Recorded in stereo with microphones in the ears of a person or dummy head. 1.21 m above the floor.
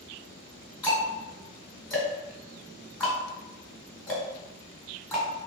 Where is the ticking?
10° left (ahead or behind), 1.5 m.